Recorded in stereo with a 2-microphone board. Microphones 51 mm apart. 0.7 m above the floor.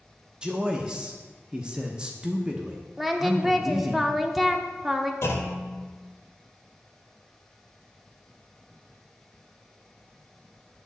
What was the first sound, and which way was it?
A man speaking, 20° right (ahead or behind).